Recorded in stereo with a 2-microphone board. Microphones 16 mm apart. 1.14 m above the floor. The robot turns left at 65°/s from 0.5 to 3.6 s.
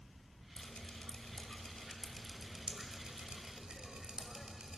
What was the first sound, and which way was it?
Dripping, 60° left (ahead or behind).